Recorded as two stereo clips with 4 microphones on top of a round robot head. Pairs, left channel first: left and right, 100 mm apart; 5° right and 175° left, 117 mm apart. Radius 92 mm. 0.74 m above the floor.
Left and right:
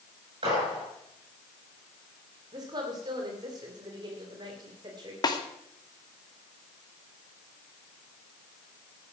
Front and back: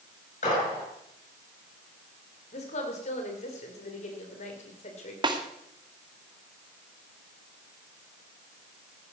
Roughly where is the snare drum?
Behind left.